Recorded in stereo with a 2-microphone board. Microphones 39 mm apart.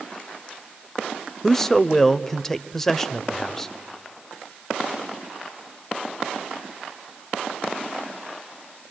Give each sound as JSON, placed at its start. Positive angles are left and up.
{"t": 1.4, "sound": "a man speaking", "side_deg": 10, "distance_m": 0.9}